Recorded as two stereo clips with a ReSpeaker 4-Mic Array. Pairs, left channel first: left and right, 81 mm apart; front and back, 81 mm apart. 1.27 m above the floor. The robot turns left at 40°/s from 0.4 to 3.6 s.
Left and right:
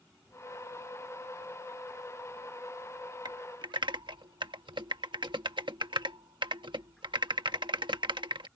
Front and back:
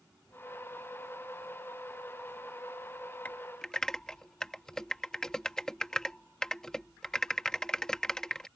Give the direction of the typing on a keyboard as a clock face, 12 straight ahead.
2 o'clock.